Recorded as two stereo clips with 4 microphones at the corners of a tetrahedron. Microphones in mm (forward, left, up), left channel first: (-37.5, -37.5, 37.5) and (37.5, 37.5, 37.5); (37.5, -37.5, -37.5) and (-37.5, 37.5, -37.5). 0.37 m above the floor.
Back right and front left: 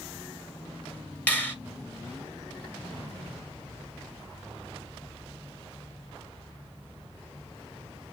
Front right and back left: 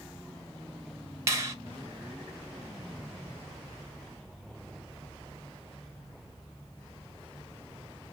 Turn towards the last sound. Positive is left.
turn(degrees=165)